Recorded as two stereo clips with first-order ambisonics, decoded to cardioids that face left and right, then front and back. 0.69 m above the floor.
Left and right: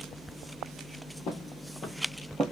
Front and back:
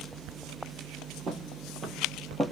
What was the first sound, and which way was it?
Footsteps, 120° left.